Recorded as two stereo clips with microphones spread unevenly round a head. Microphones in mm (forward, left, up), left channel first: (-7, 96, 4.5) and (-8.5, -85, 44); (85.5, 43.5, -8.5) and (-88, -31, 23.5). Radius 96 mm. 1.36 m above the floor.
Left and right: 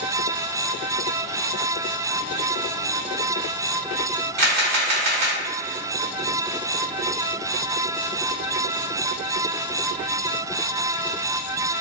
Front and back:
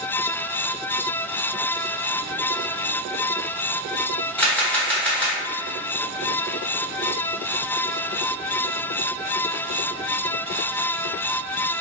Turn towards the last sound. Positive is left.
turn(degrees=-55)